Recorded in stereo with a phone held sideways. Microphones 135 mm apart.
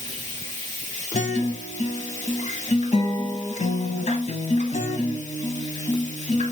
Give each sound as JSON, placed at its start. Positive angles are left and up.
{"t": 0.0, "sound": "running water", "side_deg": 35, "distance_m": 4.0}
{"t": 1.1, "sound": "a guitar", "side_deg": 55, "distance_m": 1.0}